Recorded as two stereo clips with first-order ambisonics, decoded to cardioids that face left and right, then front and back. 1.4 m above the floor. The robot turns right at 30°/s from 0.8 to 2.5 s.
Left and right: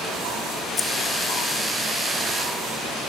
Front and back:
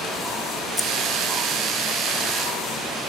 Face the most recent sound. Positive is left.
turn(degrees=120)